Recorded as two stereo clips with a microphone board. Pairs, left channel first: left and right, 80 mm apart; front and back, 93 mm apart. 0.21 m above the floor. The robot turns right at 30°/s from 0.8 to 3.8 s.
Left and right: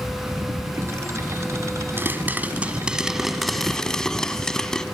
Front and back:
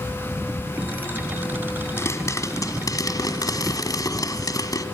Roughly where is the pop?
Ahead right.